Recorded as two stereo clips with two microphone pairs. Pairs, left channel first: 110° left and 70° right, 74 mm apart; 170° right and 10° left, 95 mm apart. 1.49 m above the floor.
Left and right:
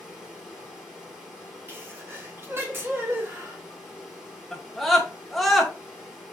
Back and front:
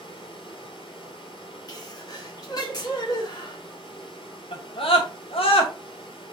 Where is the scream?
165° right, 2 m.